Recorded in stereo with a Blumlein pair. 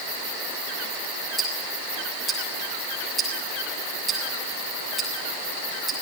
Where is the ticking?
15° right, 6.5 m.